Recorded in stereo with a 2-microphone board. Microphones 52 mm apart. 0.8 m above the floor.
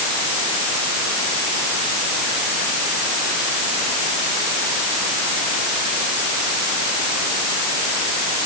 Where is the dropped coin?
I don't hear a dropped coin.